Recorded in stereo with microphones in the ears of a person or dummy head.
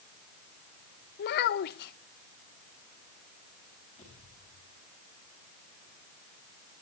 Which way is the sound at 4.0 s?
30° left (ahead or behind).